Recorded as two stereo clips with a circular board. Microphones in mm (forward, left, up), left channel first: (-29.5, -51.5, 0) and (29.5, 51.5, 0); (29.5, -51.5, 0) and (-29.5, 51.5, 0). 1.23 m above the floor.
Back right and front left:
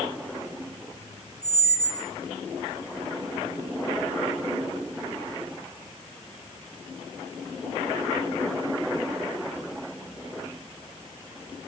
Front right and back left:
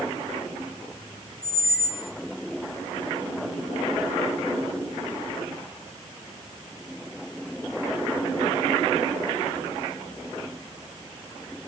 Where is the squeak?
65° right, 1.1 m.